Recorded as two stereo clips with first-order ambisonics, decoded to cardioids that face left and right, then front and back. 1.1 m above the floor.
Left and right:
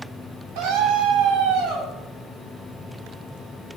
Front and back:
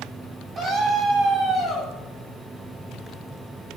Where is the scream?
110° right, 6 m.